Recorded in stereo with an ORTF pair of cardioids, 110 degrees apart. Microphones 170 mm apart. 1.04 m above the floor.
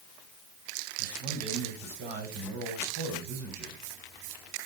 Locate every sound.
1.0 s a man speaking: 60° right, 4 m